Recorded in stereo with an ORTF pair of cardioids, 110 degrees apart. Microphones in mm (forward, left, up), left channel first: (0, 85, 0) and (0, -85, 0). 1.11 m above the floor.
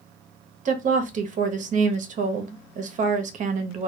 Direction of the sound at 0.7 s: 45° right.